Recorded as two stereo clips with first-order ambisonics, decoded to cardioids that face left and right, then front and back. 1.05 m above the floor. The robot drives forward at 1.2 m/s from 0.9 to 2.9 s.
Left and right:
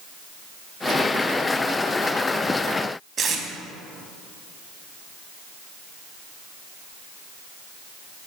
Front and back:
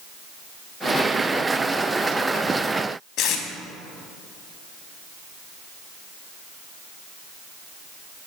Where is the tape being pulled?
35° right, 0.7 m.